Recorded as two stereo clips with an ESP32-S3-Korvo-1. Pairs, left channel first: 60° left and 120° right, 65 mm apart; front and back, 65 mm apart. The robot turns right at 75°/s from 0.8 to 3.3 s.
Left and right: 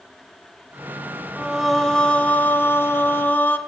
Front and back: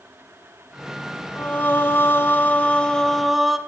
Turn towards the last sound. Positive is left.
turn(degrees=90)